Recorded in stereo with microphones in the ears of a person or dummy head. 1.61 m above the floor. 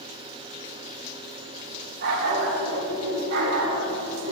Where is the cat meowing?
No cat meowing in this recording.